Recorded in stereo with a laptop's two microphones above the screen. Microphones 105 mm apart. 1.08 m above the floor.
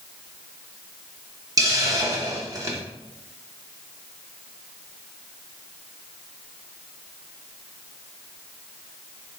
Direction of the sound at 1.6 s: 35° right (ahead or behind).